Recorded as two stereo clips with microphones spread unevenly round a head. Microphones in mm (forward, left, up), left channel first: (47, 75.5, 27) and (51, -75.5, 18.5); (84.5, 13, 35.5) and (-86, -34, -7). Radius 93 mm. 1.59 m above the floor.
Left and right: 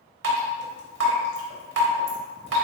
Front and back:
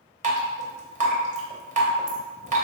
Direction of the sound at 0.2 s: 110° right.